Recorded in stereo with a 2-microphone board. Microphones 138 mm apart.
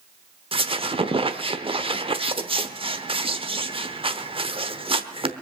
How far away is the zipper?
No zipper in this recording.